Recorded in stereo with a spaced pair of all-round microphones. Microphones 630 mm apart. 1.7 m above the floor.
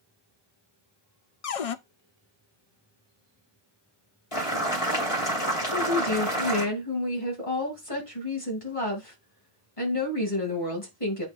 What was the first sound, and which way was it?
A cupboard door, 60° left (ahead or behind).